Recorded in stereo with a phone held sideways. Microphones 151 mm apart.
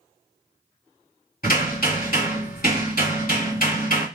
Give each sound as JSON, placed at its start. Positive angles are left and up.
{"t": 1.4, "sound": "hammering", "side_deg": 65, "distance_m": 2.0}